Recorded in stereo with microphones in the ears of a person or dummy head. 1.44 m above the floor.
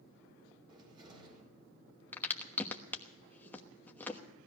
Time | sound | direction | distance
0.7 | a cupboard door | 20° right (ahead or behind) | 4 m
2.1 | a crack | 15° left (ahead or behind) | 1.2 m